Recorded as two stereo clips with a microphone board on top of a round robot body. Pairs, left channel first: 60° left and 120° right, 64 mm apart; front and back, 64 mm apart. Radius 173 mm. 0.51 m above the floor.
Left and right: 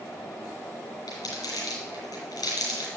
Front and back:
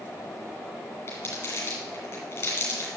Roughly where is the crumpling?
Ahead left.